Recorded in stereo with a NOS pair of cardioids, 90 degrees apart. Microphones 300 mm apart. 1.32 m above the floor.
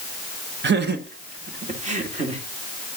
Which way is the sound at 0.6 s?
40° right.